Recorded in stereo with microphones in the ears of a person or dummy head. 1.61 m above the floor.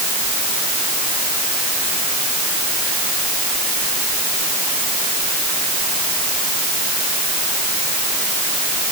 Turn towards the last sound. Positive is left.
No sound to turn to.